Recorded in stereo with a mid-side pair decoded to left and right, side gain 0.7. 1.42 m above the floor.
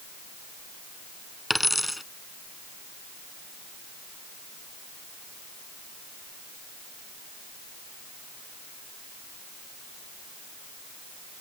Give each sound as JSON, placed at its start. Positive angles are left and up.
{"t": 1.5, "sound": "a dropped coin", "azimuth_deg": 0}